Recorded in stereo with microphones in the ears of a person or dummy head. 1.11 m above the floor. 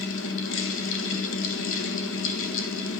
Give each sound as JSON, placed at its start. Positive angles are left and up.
{"t": 0.0, "sound": "a fan", "side_deg": 65, "distance_m": 1.5}